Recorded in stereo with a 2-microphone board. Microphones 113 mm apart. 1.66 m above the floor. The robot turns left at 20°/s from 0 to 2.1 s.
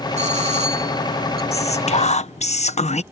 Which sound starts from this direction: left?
Whispering, at 1.5 s.